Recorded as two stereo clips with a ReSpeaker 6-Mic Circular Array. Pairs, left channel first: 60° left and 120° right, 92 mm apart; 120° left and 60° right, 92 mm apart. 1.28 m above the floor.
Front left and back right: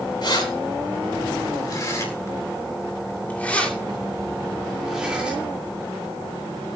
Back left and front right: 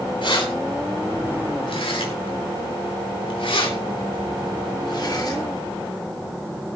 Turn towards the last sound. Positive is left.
turn(degrees=165)